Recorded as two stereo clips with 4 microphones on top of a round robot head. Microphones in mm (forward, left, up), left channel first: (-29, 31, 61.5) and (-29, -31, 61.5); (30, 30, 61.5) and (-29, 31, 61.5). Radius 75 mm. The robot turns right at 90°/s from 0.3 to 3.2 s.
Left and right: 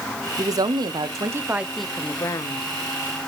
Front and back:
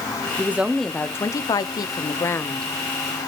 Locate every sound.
0.4 s a woman speaking: 125° right, 0.7 m; by 2.7 s 80° left, 0.7 m